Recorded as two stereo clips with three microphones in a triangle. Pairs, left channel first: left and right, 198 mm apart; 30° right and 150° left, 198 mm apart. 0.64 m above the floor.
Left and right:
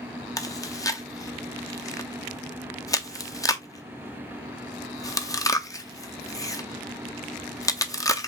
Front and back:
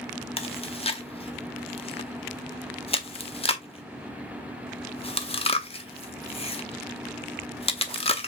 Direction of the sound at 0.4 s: 20° left.